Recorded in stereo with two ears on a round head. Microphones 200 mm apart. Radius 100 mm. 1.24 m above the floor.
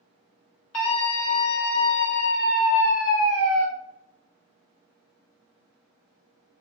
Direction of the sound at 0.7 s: 75° left (ahead or behind).